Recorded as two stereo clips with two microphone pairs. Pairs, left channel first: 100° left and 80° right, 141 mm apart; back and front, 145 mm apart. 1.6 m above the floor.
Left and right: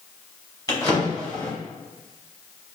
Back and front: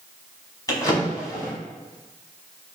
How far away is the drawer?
About 1.0 m.